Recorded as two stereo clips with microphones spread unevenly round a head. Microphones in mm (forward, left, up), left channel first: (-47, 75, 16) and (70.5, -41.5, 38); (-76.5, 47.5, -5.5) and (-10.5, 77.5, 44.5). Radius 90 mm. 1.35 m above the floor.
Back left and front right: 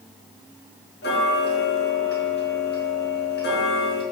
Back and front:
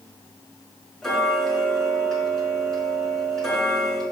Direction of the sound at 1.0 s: 110° left.